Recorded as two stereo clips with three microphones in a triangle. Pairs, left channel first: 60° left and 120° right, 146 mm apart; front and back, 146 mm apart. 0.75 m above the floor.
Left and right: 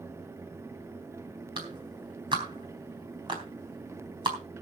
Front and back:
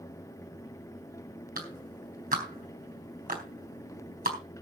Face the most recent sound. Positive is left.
turn(degrees=-175)